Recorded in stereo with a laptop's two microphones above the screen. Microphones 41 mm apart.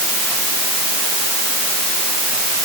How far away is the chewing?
I don't hear chewing.